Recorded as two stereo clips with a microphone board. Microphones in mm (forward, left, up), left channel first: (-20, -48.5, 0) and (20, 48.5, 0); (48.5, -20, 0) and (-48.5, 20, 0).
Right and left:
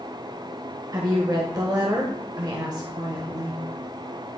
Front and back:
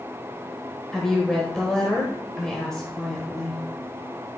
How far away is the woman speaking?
About 1.3 m.